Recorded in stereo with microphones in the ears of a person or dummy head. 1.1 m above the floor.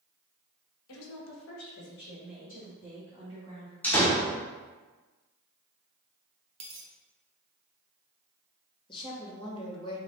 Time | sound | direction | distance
0.9 | a woman speaking | 70° left (ahead or behind) | 1.1 m
3.8 | a door slam | 10° left (ahead or behind) | 0.9 m
6.6 | a dropped coin | 35° right (ahead or behind) | 0.8 m
8.9 | a woman speaking | 25° left (ahead or behind) | 1.0 m